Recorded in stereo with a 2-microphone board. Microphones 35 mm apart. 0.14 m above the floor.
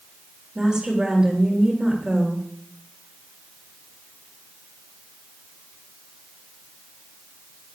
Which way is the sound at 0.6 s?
20° right (ahead or behind).